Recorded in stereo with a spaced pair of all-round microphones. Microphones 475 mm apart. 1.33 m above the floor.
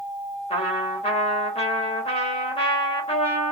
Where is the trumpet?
15° left (ahead or behind), 1.0 m.